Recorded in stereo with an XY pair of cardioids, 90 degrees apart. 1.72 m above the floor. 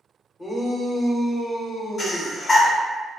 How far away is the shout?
About 1.3 m.